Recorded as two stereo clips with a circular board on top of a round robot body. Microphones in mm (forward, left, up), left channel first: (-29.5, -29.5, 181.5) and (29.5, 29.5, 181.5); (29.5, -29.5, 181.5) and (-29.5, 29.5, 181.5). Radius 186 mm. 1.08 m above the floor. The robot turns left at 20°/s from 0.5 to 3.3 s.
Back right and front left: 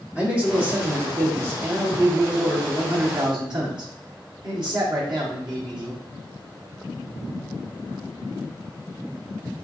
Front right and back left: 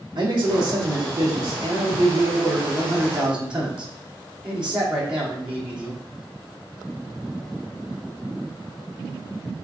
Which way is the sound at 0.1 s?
115° left.